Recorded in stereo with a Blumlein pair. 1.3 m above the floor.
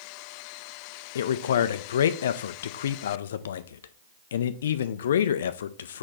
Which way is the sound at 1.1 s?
60° left.